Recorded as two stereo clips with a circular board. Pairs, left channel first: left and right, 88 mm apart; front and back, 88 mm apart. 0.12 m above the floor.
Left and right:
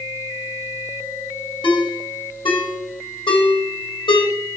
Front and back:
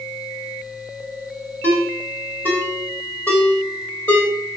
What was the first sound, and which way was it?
A ringtone, 70° left.